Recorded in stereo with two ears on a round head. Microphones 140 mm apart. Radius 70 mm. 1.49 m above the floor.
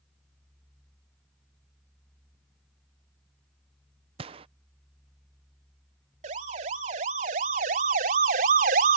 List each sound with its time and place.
4.2 s a gunshot: 35° right (ahead or behind)
6.2 s a siren: 45° right (ahead or behind); by 9.0 s 60° right (ahead or behind)